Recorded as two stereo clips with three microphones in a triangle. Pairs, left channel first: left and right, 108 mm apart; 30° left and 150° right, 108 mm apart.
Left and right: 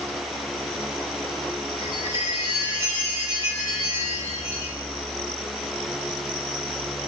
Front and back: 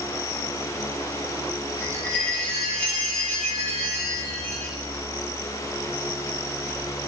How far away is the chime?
About 1.6 m.